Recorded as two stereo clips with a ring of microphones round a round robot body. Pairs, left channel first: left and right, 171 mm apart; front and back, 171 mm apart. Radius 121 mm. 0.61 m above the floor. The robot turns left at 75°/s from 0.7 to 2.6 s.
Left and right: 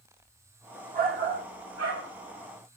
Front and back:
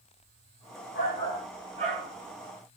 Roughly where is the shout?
Ahead right.